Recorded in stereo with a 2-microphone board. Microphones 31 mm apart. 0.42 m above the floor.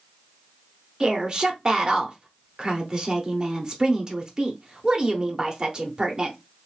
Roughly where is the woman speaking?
Right.